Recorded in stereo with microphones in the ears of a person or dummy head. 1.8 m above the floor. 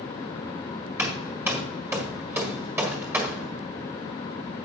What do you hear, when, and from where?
1.0 s hammering: 10° right (ahead or behind), 1.4 m